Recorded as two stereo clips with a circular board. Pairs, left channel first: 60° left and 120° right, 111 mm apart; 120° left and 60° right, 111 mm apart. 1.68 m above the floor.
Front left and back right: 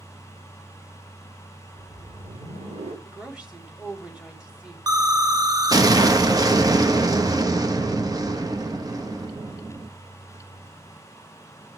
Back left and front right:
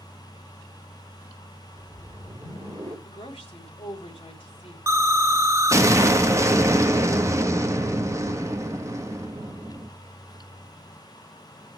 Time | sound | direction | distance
1.7 | a whoosh | 115° right | 5 m
3.0 | a woman speaking | 160° left | 4 m
4.9 | an explosion | 100° right | 1.1 m